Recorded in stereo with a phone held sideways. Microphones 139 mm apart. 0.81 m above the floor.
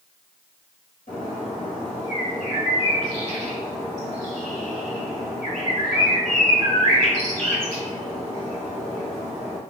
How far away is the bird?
About 1.8 m.